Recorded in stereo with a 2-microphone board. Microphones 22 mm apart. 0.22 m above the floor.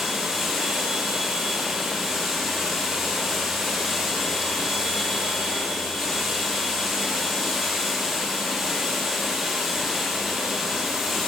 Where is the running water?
10° right (ahead or behind), 7 m.